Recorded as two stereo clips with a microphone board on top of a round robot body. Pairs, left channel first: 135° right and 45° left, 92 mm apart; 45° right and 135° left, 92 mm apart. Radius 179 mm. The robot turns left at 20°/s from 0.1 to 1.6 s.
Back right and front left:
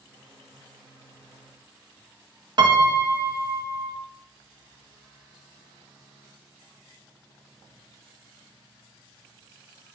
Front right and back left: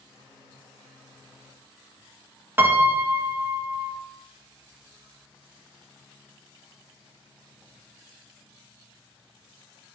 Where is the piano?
70° left, 1.1 m.